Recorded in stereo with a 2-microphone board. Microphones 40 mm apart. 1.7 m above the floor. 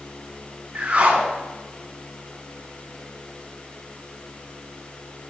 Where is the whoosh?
30° right (ahead or behind), 3 m.